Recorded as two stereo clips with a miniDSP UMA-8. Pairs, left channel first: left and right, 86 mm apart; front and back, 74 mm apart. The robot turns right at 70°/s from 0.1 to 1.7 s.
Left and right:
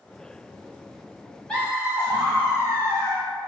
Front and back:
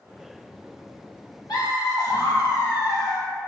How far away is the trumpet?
I don't hear a trumpet.